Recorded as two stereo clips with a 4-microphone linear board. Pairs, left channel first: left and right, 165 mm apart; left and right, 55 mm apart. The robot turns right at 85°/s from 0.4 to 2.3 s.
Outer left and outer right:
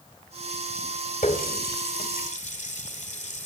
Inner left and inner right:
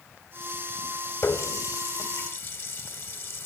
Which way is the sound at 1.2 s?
40° left (ahead or behind).